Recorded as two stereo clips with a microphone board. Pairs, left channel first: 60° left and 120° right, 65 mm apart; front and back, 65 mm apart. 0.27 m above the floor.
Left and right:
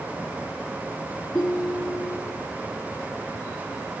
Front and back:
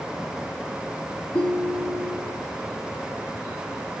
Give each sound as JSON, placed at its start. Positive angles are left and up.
{"t": 1.3, "sound": "a ringtone", "azimuth_deg": 0, "distance_m": 1.4}